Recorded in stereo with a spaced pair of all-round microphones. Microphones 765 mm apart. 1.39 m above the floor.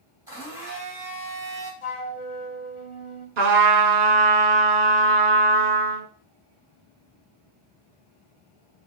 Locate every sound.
0.3 s a blender: 5° right (ahead or behind), 2.5 m
1.8 s a flute: 40° left (ahead or behind), 0.9 m
3.4 s a trumpet: 65° right (ahead or behind), 0.9 m